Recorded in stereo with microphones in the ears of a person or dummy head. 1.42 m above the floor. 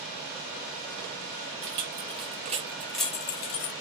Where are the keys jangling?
65° right (ahead or behind), 1.0 m; by 3.7 s 45° left (ahead or behind), 0.7 m.